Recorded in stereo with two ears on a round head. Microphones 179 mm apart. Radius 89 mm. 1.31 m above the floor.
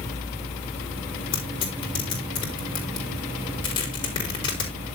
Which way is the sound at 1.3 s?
25° left (ahead or behind).